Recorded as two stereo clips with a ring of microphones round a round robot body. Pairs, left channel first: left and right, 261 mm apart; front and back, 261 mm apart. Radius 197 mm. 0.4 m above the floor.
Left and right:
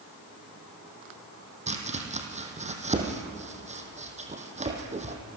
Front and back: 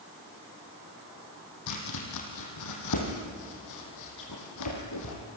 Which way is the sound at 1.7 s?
25° right.